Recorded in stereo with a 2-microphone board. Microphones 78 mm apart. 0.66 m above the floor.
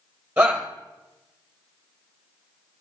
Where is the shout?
15° right (ahead or behind), 3.5 m.